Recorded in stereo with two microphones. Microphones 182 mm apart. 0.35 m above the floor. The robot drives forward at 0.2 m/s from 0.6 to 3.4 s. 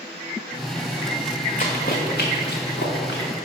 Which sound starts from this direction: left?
Running footsteps, at 1.6 s.